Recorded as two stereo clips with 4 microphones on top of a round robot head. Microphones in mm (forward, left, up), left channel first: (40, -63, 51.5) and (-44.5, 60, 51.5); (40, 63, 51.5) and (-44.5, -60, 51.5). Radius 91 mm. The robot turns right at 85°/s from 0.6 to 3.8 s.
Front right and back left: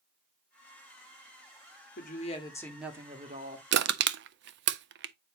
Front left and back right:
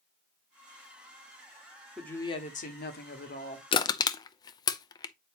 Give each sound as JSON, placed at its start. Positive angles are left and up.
{"t": 2.0, "sound": "a woman speaking", "azimuth_deg": -35, "distance_m": 2.0}
{"t": 3.7, "sound": "crushing", "azimuth_deg": 115, "distance_m": 0.5}